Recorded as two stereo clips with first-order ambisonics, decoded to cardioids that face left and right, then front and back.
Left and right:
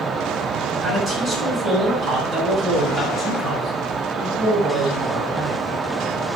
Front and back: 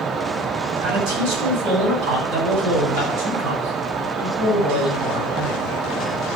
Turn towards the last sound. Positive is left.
turn(degrees=-175)